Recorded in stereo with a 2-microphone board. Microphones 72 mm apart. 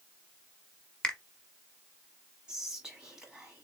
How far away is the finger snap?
About 0.9 m.